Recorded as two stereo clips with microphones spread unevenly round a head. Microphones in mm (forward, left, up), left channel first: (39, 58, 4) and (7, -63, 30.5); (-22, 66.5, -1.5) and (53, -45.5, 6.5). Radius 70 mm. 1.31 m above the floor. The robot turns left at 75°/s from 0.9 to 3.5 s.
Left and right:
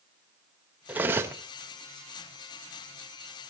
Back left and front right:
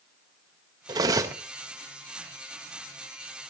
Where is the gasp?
I don't hear a gasp.